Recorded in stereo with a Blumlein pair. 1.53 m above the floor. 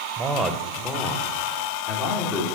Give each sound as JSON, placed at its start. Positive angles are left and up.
{"t": 0.2, "sound": "a man speaking", "azimuth_deg": -15, "distance_m": 1.1}